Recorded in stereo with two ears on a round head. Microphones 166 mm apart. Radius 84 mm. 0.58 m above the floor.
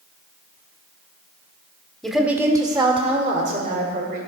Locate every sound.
2.0 s a woman speaking: centre (ahead or behind), 1.1 m; by 4.2 s 50° right (ahead or behind), 2.5 m